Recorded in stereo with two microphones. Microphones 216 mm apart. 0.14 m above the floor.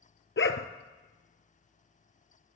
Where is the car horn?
I don't hear a car horn.